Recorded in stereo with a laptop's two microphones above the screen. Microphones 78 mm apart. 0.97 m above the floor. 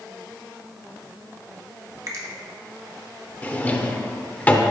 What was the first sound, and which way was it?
A finger snap, 45° right (ahead or behind).